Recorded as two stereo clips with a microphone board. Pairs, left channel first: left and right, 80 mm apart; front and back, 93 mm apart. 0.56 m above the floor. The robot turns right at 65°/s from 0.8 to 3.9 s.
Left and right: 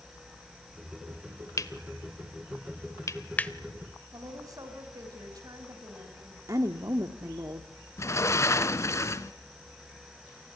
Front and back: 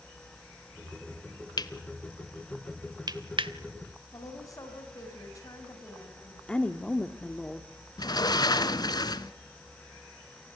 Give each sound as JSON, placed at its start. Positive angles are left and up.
{"t": 1.6, "sound": "cutlery clinking", "azimuth_deg": 40, "distance_m": 1.2}
{"t": 4.1, "sound": "a woman speaking", "azimuth_deg": -50, "distance_m": 5.0}
{"t": 6.5, "sound": "a woman speaking", "azimuth_deg": -70, "distance_m": 1.3}
{"t": 8.0, "sound": "a sliding door", "azimuth_deg": 40, "distance_m": 1.0}